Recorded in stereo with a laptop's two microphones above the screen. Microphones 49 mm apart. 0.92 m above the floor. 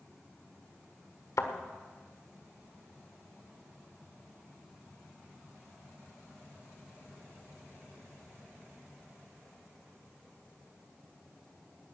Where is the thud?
80° left, 1.4 m.